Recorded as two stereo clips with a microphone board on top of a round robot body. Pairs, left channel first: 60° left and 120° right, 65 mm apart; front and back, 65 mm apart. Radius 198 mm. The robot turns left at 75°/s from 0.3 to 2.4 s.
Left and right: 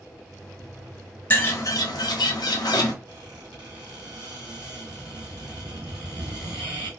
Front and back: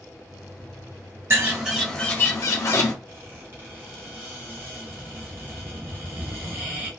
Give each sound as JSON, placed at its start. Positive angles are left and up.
{"t": 1.3, "sound": "a bird", "azimuth_deg": 125, "distance_m": 0.5}
{"t": 3.1, "sound": "a squeak", "azimuth_deg": -125, "distance_m": 1.0}